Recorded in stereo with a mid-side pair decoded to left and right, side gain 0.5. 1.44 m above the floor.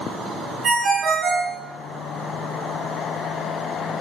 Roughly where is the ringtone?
Ahead right.